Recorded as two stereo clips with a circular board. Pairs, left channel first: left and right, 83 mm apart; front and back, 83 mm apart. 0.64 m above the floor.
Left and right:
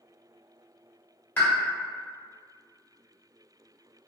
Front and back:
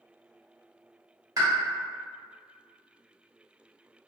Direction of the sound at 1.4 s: 150° left.